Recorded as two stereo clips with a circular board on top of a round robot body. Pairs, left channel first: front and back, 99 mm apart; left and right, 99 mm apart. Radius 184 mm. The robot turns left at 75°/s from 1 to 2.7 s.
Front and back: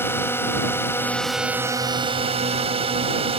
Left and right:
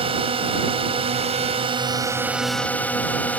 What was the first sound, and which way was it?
A drone, 65° right.